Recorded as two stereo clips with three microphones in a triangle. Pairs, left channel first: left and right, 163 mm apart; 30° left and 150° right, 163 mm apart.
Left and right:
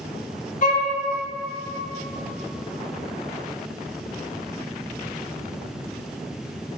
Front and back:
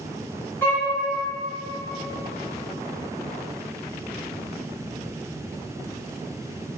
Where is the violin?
105° left, 0.6 m.